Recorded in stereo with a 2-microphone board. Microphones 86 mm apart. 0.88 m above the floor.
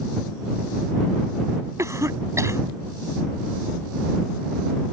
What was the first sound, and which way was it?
A cough, 35° right (ahead or behind).